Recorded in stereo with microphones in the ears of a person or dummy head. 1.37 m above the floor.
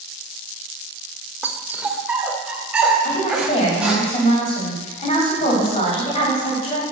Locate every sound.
1.4 s a dog barking: 5° right (ahead or behind), 1.6 m; by 4.0 s centre (ahead or behind), 4.5 m
3.0 s a woman speaking: 25° left (ahead or behind), 9 m